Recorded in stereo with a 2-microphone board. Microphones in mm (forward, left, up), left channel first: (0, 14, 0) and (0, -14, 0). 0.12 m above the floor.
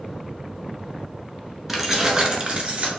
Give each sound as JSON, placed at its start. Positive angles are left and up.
{"t": 1.7, "sound": "keys jangling", "side_deg": -5, "distance_m": 0.8}